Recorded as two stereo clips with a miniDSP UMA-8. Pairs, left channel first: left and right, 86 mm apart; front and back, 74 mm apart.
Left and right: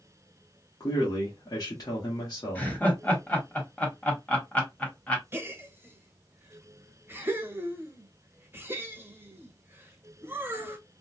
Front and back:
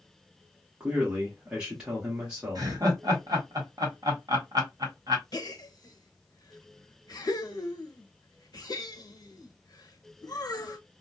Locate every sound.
0.8 s a man speaking: 110° left, 1.1 m
2.5 s laughter: 165° left, 1.2 m
5.3 s a gasp: 25° right, 0.6 m